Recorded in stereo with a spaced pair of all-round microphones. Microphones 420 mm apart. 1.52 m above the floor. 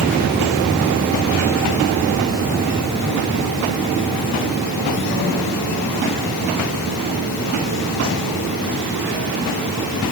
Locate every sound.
Only background noise.